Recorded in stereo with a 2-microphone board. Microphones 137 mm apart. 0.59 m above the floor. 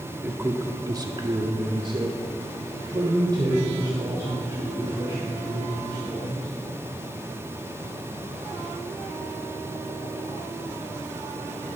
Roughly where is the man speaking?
Centre.